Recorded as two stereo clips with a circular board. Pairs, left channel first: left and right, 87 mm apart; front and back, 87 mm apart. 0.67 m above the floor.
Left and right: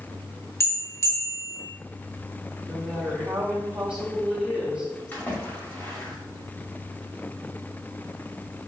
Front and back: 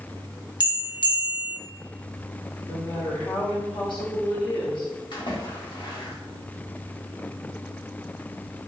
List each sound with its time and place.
0.6 s a bell: 30° left, 0.9 m
2.7 s a woman speaking: 15° right, 1.4 m
5.1 s a splash: 20° left, 1.8 m